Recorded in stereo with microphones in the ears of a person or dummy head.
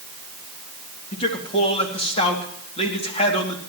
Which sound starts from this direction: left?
A man speaking, at 1.1 s.